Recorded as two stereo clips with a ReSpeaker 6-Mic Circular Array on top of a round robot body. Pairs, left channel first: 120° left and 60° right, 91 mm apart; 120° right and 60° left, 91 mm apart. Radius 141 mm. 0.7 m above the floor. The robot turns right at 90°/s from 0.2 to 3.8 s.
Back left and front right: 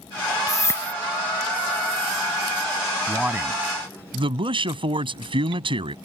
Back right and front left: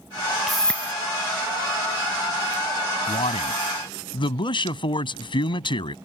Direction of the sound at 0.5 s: 145° left.